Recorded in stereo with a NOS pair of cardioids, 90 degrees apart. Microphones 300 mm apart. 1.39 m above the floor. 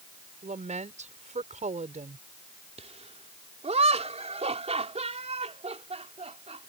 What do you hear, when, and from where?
0.4 s a woman speaking: 25° right
2.8 s laughter: 20° right